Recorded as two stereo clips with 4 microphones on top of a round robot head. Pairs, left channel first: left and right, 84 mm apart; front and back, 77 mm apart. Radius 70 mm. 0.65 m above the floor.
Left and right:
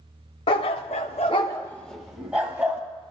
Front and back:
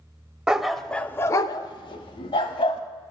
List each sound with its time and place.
0.5 s a dog barking: 100° left, 0.7 m; by 2.8 s 15° right, 1.1 m